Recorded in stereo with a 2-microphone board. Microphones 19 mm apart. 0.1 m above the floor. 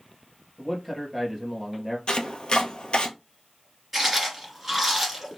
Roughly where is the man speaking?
Centre.